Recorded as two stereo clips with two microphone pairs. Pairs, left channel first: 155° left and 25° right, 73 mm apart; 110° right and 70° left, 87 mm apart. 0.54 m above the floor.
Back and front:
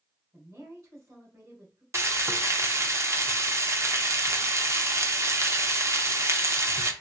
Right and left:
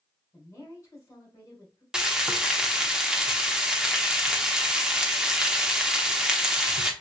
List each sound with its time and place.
0.3 s a woman speaking: 60° right, 2.5 m
1.9 s frying: 10° right, 0.7 m